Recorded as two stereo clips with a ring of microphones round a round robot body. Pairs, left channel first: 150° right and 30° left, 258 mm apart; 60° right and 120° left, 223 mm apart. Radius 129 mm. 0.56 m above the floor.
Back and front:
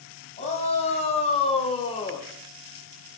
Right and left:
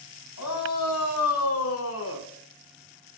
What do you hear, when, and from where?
0.4 s a shout: 85° right, 4 m; by 2.3 s 80° right, 1.7 m